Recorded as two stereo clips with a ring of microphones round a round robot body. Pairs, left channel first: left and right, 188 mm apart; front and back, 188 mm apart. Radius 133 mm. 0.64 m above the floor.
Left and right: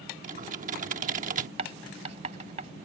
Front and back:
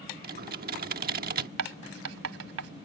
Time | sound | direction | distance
0.2 | typing on a keyboard | 140° right | ?
1.6 | writing | 160° right | ?